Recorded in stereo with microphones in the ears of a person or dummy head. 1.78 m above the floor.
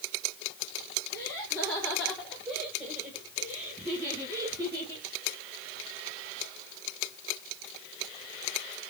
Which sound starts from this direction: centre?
Laughter, at 1.1 s.